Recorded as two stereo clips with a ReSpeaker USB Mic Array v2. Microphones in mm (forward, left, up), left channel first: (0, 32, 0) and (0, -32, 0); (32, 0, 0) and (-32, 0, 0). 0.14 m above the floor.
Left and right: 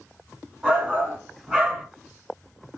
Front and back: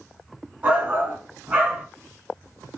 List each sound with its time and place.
0.6 s a shout: 145° right, 1.3 m